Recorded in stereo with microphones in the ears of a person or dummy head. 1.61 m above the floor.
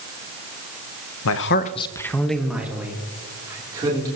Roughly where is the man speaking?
Left.